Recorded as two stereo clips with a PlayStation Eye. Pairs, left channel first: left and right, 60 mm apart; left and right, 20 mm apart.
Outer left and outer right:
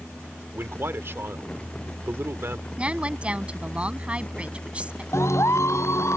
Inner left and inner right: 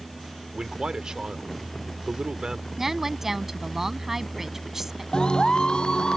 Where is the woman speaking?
20° right (ahead or behind).